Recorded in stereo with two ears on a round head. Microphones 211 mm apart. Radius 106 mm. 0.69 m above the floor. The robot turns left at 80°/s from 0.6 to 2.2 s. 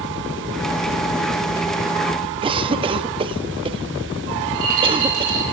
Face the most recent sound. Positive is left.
turn(degrees=-65)  # may be behind; listen again after turning